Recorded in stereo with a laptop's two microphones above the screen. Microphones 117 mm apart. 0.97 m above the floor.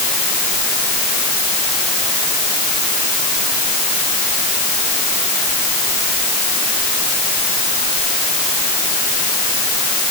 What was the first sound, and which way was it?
Only background noise.